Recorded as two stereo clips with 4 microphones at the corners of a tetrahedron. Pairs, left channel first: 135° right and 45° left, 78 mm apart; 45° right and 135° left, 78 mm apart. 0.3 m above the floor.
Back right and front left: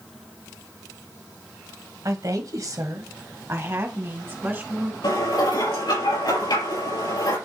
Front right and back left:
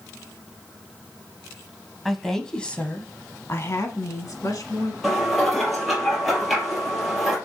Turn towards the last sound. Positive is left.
turn(degrees=-135)